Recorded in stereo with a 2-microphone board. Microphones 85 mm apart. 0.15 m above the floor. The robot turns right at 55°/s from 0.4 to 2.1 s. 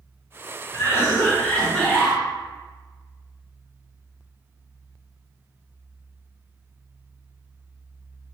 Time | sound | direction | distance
0.7 | a cough | 115° left | 1.5 m